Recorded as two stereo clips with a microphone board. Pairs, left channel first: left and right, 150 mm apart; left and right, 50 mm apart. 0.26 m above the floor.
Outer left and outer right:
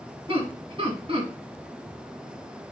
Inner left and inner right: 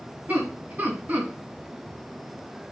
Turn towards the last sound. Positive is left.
turn(degrees=-40)  # may be behind; listen again after turning